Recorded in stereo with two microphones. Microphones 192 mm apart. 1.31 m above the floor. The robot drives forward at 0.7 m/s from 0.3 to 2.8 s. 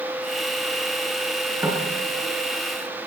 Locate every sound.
1.6 s knocking: 15° right (ahead or behind), 9 m